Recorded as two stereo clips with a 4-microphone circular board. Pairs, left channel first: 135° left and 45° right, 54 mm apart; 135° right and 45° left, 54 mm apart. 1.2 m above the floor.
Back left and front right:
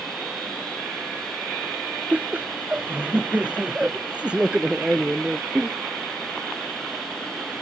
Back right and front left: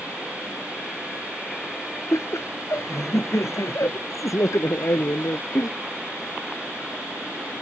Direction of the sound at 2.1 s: 105° right.